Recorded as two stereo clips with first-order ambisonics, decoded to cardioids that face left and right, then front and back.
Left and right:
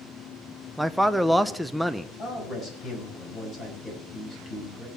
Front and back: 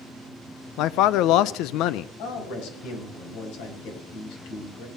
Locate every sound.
0.8 s a man speaking: straight ahead, 0.6 m
2.2 s a man speaking: 25° left, 5 m